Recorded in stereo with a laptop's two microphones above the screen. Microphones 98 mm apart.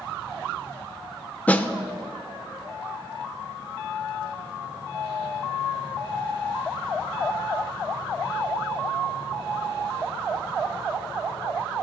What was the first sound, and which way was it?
A snare drum, 15° left (ahead or behind).